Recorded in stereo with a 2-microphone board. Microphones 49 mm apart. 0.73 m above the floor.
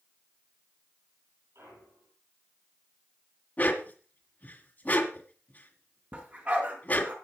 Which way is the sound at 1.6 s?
70° right (ahead or behind).